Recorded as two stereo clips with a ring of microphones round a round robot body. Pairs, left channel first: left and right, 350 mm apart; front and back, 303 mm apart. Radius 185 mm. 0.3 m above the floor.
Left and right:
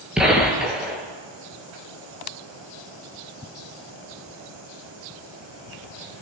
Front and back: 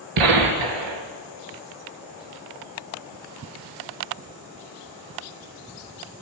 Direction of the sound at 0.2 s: Straight behind.